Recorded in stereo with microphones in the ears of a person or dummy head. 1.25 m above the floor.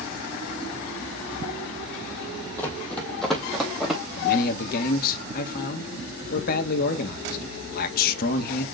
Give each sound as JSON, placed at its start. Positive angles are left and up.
{"t": 2.6, "sound": "running footsteps", "side_deg": 10, "distance_m": 2.5}
{"t": 4.2, "sound": "a man speaking", "side_deg": 50, "distance_m": 1.5}